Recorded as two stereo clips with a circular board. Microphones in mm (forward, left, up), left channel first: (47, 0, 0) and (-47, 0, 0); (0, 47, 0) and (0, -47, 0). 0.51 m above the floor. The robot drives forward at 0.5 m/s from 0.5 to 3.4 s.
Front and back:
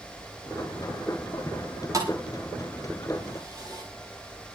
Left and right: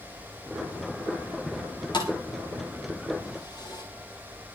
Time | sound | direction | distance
1.9 | a thud | 125° left | 7 m